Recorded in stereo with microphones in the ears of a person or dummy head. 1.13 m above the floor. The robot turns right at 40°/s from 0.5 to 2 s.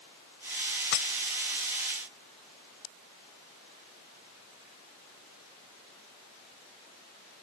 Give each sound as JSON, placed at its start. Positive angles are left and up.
{"t": 0.9, "sound": "breaking glass", "side_deg": 65}